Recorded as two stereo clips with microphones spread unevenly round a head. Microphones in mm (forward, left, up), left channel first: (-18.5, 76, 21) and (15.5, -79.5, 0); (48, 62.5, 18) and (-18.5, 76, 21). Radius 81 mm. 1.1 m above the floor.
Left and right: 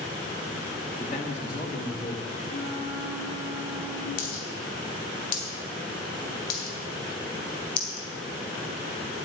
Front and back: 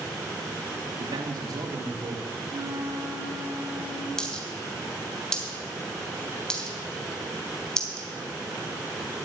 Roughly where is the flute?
Behind left.